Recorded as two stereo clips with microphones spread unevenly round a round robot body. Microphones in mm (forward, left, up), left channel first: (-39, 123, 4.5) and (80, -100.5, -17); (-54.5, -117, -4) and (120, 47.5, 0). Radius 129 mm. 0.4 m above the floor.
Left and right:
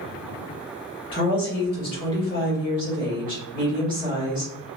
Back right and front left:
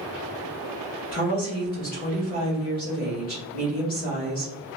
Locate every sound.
1.1 s a woman speaking: 175° right, 1.8 m